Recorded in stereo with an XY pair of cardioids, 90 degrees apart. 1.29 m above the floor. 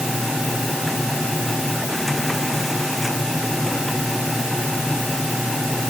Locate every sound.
0.0 s a machine running: 10° left